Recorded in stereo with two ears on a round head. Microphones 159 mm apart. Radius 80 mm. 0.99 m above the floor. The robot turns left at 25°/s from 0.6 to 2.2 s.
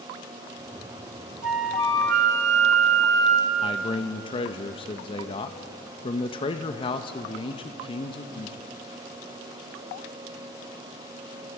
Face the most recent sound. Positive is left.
turn(degrees=30)  # may be behind; listen again after turning